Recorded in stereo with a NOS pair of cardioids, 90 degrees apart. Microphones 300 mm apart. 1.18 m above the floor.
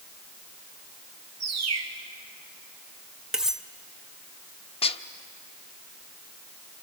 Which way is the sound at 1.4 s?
60° right.